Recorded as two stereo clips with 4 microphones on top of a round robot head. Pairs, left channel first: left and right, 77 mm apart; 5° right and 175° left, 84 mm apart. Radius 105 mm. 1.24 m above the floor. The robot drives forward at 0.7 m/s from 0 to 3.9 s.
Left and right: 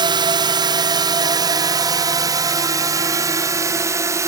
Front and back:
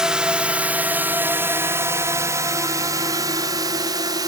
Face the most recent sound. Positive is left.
turn(degrees=-140)